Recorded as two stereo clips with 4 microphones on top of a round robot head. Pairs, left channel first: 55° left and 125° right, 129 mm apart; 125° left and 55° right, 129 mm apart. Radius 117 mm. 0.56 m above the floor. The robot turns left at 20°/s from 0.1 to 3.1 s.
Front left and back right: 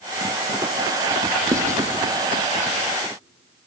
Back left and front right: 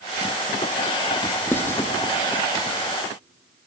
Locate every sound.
1.5 s writing: 170° right, 1.1 m; by 1.8 s straight behind, 1.1 m